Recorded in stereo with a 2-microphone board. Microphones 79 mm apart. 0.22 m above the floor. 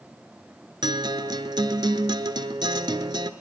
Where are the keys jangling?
I don't hear keys jangling.